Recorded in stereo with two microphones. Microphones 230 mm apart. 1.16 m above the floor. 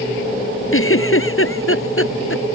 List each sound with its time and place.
0.7 s a giggle: 60° left (ahead or behind)